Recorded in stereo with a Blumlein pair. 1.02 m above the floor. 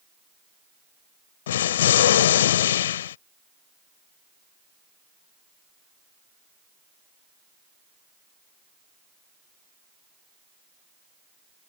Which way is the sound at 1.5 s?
60° left.